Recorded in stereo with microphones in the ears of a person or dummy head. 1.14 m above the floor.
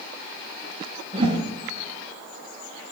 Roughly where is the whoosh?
Right.